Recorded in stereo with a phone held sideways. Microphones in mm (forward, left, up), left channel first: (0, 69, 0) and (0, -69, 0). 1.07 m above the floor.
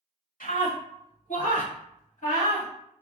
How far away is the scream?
About 1.9 m.